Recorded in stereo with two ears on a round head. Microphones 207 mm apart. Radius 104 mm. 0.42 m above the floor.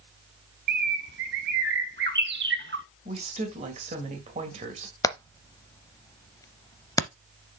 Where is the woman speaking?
30° right (ahead or behind), 2 m.